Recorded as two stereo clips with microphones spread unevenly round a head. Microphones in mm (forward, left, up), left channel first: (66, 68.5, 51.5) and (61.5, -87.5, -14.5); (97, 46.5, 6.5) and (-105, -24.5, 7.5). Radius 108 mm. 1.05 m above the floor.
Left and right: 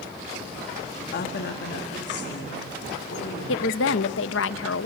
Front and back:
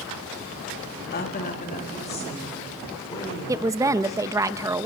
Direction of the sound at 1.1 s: 65° left.